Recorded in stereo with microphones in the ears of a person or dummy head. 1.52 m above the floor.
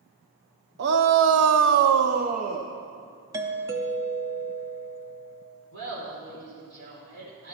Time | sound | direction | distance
0.8 | a shout | 55° right (ahead or behind) | 0.9 m
3.3 | a doorbell | 20° right (ahead or behind) | 0.7 m
5.7 | laughter | 80° right | 4.5 m